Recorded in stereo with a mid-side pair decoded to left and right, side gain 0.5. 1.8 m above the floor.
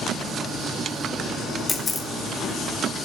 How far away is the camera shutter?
About 2 m.